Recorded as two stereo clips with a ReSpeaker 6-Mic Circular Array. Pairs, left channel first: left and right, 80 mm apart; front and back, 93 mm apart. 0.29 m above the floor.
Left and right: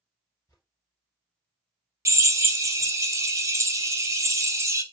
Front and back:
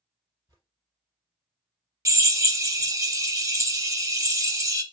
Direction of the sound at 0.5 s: 130° left.